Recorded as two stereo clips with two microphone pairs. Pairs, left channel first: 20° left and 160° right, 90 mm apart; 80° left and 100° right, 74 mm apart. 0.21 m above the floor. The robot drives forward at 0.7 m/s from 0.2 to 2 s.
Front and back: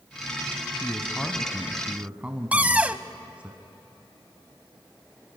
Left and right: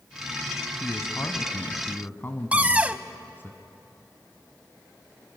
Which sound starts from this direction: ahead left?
A man speaking, at 0.8 s.